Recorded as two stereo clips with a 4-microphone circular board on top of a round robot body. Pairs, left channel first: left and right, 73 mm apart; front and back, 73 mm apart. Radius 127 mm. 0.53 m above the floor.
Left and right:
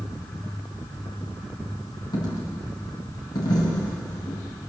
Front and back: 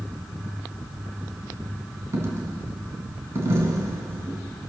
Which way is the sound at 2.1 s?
125° left.